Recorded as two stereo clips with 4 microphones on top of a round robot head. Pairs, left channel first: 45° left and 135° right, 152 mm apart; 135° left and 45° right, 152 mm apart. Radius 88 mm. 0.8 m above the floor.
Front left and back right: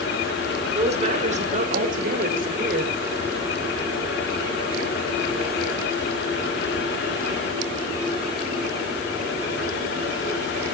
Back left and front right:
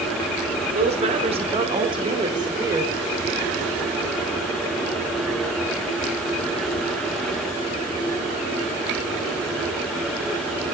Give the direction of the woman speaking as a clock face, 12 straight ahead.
3 o'clock.